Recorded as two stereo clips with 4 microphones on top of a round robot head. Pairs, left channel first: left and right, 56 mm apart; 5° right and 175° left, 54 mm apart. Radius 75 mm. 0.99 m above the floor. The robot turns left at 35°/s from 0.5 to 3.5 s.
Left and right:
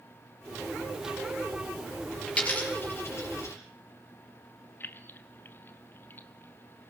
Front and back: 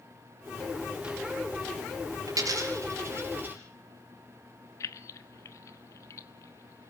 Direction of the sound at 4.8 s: 30° left.